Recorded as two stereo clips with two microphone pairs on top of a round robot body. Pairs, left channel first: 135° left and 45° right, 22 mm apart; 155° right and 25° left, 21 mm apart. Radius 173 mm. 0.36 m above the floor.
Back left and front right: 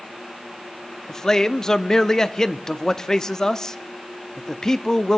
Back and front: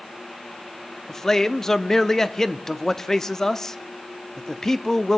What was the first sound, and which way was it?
A man speaking, straight behind.